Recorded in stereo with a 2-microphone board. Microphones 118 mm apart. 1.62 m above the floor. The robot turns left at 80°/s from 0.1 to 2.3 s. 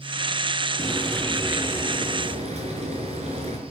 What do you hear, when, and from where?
0.8 s frying: 45° left, 5.5 m; by 3.6 s 75° right, 5.5 m